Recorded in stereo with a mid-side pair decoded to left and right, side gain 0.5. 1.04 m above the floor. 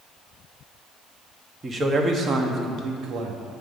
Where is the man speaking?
30° right, 1.3 m; by 3.4 s 70° right, 1.3 m.